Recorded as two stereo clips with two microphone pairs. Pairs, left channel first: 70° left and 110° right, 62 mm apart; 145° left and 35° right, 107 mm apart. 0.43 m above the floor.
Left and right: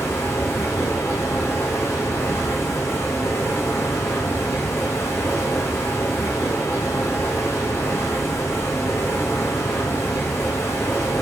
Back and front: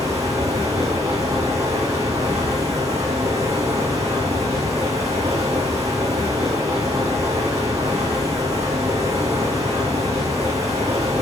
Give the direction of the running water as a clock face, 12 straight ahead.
11 o'clock.